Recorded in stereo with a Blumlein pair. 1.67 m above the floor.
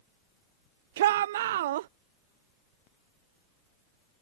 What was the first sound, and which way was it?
A shout, 55° right.